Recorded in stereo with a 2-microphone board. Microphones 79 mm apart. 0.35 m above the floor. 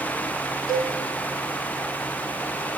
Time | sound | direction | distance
0.7 | a cowbell | 55° left (ahead or behind) | 0.8 m